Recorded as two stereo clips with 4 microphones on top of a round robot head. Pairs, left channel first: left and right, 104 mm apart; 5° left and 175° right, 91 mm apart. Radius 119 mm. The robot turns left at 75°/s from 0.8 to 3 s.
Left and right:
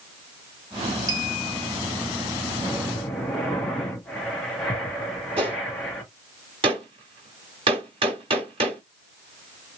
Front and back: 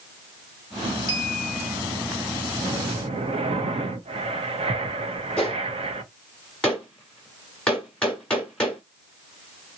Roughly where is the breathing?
Behind right.